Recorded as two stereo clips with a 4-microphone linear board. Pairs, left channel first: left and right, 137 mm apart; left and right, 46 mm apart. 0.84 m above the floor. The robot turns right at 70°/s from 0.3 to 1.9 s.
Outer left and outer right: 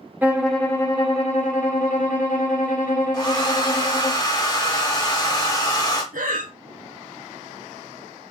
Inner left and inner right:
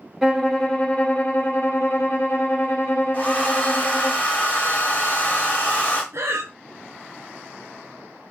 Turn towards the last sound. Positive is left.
turn(degrees=-75)  # may be behind; listen again after turning